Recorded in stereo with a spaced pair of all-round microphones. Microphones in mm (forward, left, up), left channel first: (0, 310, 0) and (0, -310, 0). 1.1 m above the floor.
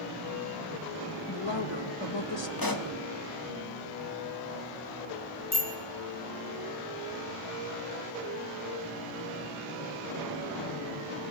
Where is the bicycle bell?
40° left (ahead or behind), 4.5 m.